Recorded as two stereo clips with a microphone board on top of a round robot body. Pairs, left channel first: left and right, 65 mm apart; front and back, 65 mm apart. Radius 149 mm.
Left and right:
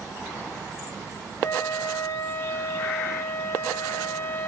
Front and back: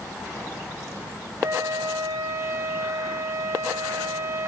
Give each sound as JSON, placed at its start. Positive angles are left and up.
{"t": 1.4, "sound": "a flute", "azimuth_deg": 140, "distance_m": 0.5}